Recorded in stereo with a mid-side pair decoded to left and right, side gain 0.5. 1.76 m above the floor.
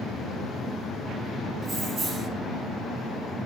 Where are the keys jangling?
35° right, 3 m.